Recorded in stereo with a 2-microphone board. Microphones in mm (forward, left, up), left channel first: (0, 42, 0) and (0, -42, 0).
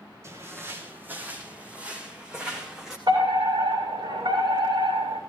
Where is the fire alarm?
65° right (ahead or behind), 6.5 m.